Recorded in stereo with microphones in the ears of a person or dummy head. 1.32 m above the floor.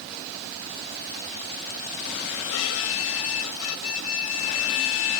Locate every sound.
2.5 s a violin: 85° left